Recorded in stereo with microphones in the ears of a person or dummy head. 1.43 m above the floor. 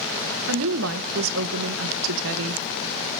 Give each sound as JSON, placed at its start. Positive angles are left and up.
{"t": 0.5, "sound": "a woman speaking", "side_deg": -70, "distance_m": 0.9}